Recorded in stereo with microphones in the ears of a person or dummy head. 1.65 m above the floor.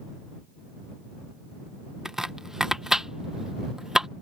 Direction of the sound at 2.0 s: Centre (ahead or behind).